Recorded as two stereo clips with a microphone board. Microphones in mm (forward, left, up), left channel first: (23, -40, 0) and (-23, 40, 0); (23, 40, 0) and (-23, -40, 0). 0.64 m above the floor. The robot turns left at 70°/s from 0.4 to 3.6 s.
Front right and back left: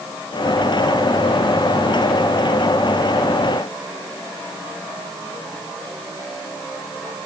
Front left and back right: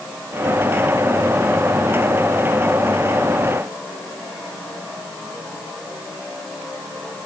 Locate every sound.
Only background noise.